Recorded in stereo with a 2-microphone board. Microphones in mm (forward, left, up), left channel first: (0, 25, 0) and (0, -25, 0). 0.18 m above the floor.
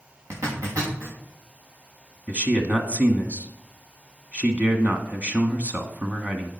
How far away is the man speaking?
About 1.3 m.